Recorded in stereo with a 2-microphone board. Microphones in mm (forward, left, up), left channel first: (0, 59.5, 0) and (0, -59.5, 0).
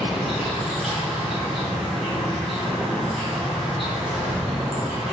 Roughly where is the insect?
Centre.